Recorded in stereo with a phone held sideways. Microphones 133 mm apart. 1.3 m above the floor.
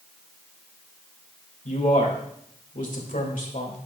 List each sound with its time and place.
1.6 s a man speaking: 80° left, 2 m